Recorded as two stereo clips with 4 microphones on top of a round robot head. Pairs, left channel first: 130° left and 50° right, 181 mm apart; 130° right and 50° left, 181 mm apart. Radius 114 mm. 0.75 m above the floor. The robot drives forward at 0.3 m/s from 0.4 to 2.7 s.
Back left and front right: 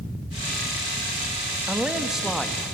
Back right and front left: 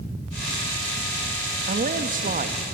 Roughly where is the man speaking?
Ahead left.